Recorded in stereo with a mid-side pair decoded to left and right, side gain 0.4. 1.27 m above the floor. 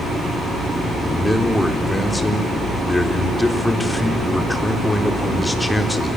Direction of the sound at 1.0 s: 10° left.